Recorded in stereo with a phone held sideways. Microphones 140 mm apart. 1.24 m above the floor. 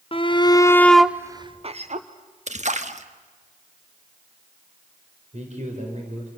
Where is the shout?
40° left (ahead or behind), 1.0 m; by 2.1 s 60° right (ahead or behind), 0.9 m.